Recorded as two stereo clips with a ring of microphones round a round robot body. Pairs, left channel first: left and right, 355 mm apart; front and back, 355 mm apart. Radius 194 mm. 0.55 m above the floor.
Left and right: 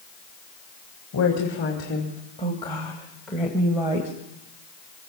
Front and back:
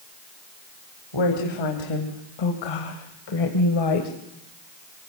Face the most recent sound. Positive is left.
turn(degrees=-15)